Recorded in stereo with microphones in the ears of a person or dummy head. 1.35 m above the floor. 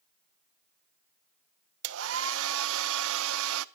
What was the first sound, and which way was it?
A hair dryer, 75° right (ahead or behind).